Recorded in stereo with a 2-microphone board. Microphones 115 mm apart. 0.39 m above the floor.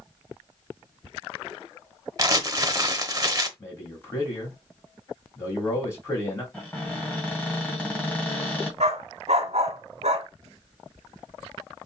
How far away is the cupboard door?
About 2.5 m.